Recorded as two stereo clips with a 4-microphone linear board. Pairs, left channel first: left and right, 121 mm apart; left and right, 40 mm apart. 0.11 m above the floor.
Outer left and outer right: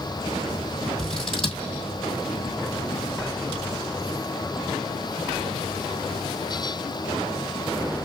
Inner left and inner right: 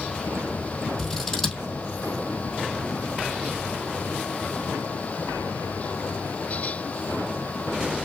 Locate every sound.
1.0 s scissors: 5° left (ahead or behind), 3 m